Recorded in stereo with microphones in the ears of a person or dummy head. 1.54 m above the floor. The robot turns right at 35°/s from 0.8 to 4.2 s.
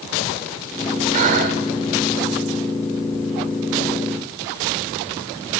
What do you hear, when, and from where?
1.1 s breathing: 30° right (ahead or behind), 1.4 m; by 1.6 s 35° right (ahead or behind), 1.4 m